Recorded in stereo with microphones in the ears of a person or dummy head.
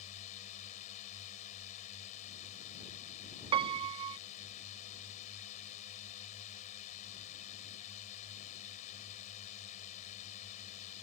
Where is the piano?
30° right (ahead or behind).